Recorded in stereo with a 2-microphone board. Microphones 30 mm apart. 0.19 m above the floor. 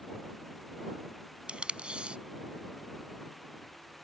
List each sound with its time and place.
1.5 s tape being pulled: 40° right (ahead or behind)